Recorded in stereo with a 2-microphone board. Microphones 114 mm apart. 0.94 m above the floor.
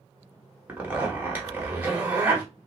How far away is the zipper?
About 1.5 m.